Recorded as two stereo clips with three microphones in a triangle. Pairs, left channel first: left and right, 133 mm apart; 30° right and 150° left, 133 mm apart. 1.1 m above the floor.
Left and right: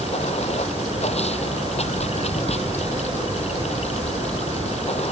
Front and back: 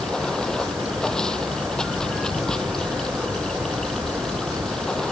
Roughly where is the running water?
Ahead left.